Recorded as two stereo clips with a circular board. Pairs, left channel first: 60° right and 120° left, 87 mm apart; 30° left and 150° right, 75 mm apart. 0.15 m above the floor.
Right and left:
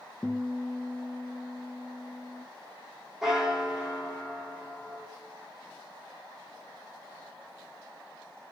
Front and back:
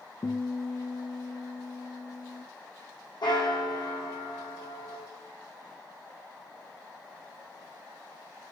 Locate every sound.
0.2 s a guitar: 15° left, 0.8 m
3.2 s a bell: 35° left, 2 m